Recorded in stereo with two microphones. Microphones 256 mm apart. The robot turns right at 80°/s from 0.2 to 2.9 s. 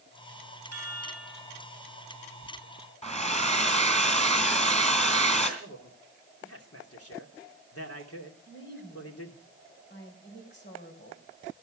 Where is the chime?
100° right, 5.5 m; by 1.7 s 20° right, 5.5 m.